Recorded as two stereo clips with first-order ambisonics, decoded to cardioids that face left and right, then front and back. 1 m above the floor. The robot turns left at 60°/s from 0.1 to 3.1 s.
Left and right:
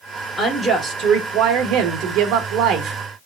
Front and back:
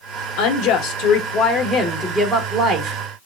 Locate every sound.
0.4 s a woman speaking: 15° left, 1.6 m; by 3.0 s 140° right, 1.6 m